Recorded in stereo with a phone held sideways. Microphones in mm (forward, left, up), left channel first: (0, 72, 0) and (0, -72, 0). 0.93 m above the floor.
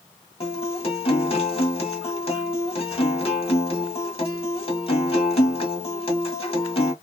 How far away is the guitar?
About 1.5 m.